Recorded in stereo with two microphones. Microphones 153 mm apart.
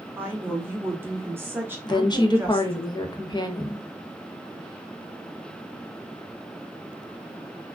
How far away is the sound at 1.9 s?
About 0.5 m.